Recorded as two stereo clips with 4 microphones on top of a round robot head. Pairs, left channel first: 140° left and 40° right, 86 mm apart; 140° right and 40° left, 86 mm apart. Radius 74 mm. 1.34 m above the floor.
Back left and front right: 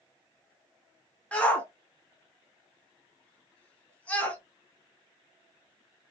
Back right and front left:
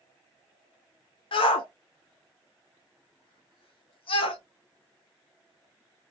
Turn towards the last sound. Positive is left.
turn(degrees=-145)